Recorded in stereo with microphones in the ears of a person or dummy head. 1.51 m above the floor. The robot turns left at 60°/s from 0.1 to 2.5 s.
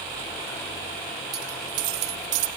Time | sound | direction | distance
1.3 | a dropped coin | 25° right | 2.5 m